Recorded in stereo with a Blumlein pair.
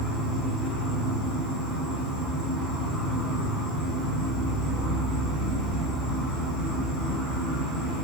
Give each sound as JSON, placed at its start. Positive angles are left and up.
{"t": 0.0, "sound": "an insect", "azimuth_deg": 30, "distance_m": 1.5}